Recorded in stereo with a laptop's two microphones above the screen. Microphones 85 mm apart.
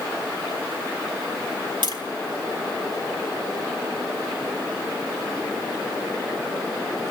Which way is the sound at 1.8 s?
65° right (ahead or behind).